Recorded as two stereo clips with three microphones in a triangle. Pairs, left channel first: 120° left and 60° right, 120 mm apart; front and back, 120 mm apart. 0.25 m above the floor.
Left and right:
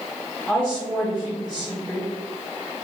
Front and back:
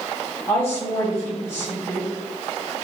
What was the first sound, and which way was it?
A woman speaking, 45° left.